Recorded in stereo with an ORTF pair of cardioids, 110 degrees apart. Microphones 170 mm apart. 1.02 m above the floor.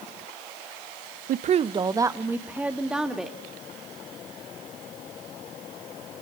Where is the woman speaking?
60° right, 0.6 m; by 3.4 s straight ahead, 2.5 m.